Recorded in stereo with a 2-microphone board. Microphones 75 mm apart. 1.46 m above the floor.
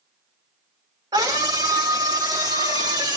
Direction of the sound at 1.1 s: 65° right (ahead or behind).